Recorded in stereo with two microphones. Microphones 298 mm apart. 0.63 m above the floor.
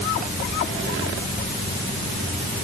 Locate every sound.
Only background noise.